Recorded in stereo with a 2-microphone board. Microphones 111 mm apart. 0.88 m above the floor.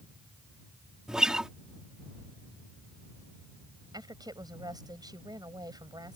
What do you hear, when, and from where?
1.1 s a guitar: 5° right (ahead or behind)
3.9 s a woman speaking: 40° right (ahead or behind)